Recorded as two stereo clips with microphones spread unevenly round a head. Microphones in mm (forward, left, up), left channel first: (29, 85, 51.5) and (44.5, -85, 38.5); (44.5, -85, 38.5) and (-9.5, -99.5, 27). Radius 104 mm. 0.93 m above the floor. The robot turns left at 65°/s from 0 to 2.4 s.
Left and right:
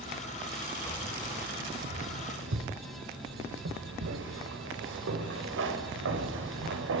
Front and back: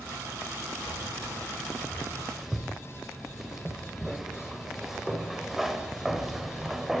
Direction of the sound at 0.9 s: 20° left.